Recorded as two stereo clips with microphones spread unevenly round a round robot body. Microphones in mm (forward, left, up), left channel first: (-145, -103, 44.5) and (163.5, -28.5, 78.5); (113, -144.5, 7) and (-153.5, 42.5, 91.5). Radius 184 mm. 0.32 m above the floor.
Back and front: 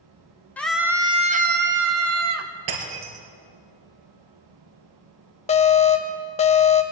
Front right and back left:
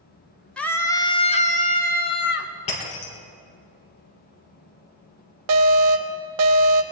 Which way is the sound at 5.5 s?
140° left.